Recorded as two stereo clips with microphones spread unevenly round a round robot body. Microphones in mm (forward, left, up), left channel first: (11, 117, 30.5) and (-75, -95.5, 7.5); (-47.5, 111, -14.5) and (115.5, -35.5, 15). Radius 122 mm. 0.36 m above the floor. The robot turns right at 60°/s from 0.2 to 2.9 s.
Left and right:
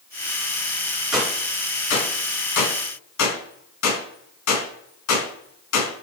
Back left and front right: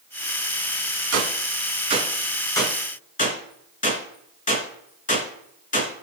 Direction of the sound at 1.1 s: 25° right.